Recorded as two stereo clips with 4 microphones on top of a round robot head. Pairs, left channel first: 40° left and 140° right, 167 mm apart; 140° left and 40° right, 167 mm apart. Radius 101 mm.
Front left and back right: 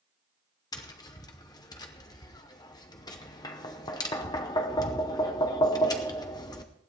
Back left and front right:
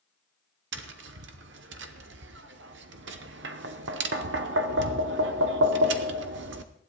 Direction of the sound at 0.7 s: 25° right.